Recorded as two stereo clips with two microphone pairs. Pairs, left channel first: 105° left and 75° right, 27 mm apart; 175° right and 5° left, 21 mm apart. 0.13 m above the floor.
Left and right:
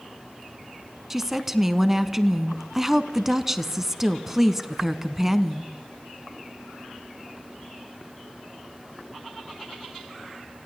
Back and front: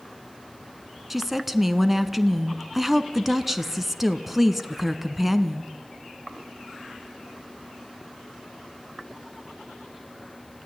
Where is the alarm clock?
I don't hear an alarm clock.